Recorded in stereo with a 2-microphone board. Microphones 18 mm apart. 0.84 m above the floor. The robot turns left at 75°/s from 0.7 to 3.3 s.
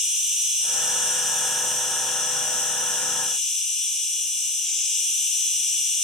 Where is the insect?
120° right, 1.9 m; by 6.1 s 45° left, 1.9 m.